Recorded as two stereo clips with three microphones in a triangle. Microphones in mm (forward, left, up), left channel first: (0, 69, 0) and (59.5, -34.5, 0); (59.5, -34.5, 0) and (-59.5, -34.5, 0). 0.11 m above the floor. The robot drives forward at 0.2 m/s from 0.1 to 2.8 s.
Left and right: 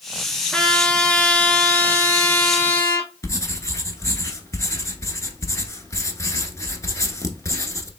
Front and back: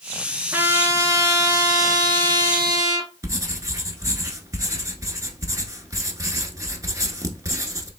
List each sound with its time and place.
0.5 s a trumpet: 175° right, 0.8 m; by 3.1 s straight behind, 1.1 m
3.2 s writing: 150° left, 0.9 m